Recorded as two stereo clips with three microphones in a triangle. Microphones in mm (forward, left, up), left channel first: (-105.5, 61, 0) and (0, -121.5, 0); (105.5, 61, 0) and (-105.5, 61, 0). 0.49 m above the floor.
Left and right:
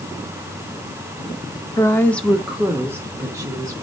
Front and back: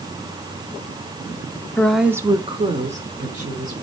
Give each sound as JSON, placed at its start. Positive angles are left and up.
{"t": 1.8, "sound": "a woman speaking", "azimuth_deg": 70, "distance_m": 0.7}